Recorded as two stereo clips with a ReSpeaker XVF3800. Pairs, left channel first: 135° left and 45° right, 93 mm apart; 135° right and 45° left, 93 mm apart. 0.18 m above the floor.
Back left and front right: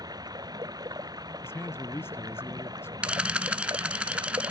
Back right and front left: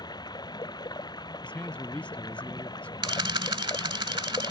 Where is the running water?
90° right.